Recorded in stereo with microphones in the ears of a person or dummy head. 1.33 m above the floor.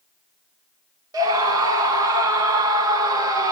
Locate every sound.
1.1 s a scream: 20° right (ahead or behind), 1.1 m